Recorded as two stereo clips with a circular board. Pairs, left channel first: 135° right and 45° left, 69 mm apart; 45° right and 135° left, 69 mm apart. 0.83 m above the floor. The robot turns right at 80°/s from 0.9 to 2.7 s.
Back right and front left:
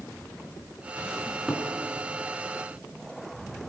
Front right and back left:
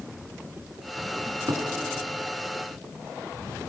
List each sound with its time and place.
1.2 s a cupboard door: 105° left, 3.5 m; by 1.7 s 140° left, 3.5 m